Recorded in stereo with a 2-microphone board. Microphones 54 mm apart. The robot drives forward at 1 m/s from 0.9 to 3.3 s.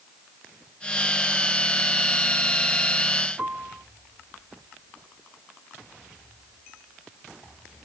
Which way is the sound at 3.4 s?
30° right (ahead or behind).